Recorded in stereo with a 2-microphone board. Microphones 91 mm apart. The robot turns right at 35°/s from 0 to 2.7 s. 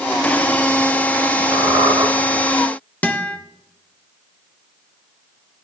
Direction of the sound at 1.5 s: 65° right (ahead or behind).